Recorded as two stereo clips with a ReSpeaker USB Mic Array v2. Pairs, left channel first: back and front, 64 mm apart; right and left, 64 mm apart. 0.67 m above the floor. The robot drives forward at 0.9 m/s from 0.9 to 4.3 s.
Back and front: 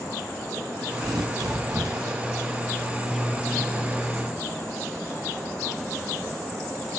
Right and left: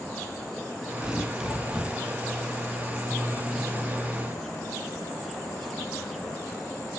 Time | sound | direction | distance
1.0 | tearing paper | 10° left | 2.5 m